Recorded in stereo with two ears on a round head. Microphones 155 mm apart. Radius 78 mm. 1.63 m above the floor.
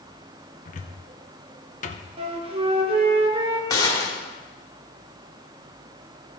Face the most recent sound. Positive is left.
turn(degrees=20)  # may be behind; listen again after turning